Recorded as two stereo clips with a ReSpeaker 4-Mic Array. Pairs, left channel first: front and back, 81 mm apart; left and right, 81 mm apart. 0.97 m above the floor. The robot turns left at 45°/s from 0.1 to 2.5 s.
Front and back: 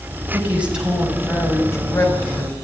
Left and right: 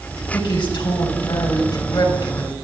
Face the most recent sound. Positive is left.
turn(degrees=20)